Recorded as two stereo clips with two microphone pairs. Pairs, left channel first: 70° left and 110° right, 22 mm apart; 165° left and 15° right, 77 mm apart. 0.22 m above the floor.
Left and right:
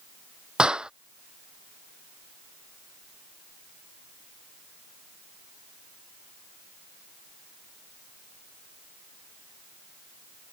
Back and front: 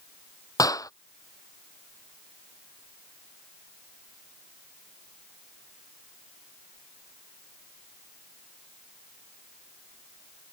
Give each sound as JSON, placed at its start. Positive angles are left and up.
{"t": 0.6, "sound": "a clap", "azimuth_deg": -155}